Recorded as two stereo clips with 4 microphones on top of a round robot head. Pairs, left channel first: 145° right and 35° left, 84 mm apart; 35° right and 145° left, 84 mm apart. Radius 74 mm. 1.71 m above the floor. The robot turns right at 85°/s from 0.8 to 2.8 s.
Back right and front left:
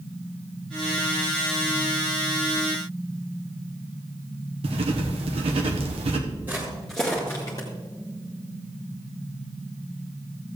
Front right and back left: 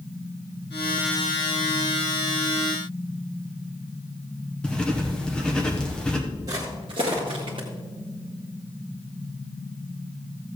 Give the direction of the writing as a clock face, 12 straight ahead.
11 o'clock.